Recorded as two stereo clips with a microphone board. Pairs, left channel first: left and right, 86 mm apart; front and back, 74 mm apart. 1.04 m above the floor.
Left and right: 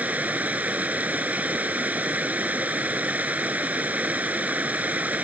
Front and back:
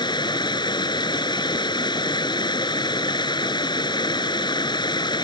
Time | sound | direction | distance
0.0 | running water | 15° right | ?